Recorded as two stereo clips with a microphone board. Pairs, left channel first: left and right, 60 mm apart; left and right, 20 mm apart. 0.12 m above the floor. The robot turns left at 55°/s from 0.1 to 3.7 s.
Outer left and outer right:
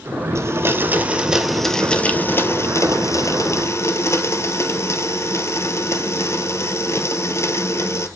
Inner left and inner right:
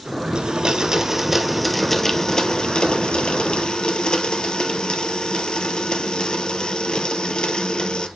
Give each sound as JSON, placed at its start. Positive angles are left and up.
{"t": 0.3, "sound": "a blender", "azimuth_deg": -115, "distance_m": 0.9}